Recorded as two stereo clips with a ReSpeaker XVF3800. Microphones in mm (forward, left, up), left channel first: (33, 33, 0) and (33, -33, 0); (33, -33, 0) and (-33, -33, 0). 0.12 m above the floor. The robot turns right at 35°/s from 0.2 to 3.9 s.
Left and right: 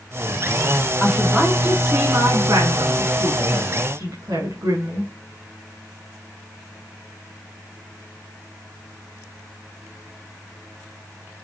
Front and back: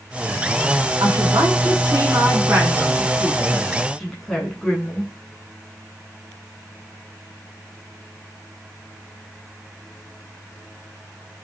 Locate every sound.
1.0 s a woman speaking: 175° left, 9.5 m; by 5.1 s 85° right, 9.5 m